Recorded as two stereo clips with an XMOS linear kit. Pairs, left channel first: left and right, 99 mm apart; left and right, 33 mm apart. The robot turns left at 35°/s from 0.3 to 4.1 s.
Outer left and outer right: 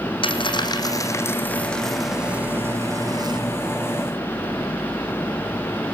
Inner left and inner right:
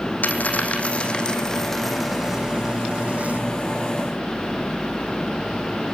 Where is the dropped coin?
55° left (ahead or behind), 3 m; by 3.4 s 50° right (ahead or behind), 3 m.